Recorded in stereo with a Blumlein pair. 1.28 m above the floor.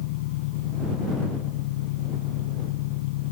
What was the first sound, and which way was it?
An engine running, 50° left.